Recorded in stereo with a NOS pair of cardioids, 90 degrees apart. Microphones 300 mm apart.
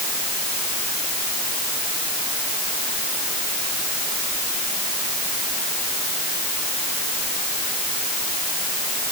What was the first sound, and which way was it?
Only background noise.